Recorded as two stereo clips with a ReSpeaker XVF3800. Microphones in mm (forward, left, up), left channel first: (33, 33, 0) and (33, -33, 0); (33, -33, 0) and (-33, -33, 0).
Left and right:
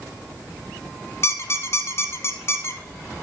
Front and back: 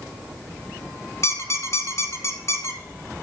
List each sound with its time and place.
1.2 s a squeak: 40° left, 1.2 m